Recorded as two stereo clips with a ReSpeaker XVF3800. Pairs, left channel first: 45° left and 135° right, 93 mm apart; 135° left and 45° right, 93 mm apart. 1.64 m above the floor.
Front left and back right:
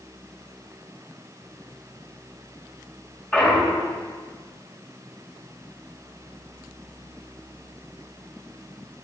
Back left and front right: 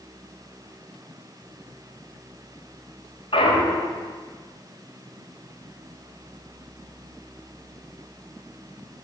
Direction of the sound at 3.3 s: 120° left.